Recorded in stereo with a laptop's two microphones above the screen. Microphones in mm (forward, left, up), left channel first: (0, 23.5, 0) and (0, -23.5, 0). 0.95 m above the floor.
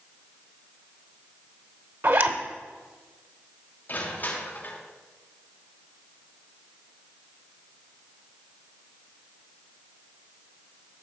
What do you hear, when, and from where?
2.0 s a zipper: 55° right (ahead or behind), 1.0 m
3.9 s crushing: 35° left (ahead or behind), 2 m